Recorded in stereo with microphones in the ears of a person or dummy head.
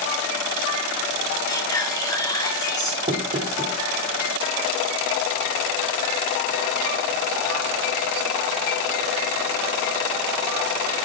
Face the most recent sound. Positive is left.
turn(degrees=-25)  # may be behind; listen again after turning